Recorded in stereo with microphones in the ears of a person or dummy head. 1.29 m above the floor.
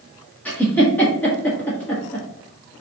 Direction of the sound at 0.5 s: 10° left (ahead or behind).